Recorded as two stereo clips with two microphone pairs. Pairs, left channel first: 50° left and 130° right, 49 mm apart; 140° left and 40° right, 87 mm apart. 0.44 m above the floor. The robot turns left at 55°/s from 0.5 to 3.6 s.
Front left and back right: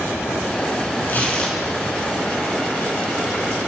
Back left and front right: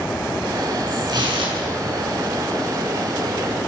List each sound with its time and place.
1.1 s tearing paper: straight ahead, 5.5 m; by 2.0 s 50° right, 5.5 m